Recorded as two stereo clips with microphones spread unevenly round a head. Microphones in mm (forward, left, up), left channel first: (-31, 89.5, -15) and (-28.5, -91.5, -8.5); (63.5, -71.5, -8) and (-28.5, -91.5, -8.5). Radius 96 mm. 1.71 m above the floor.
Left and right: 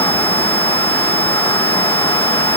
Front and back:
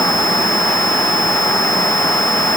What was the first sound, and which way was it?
Only background noise.